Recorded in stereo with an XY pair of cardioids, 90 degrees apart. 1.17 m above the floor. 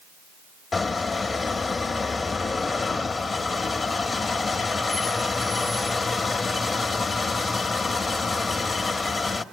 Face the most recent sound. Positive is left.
turn(degrees=40)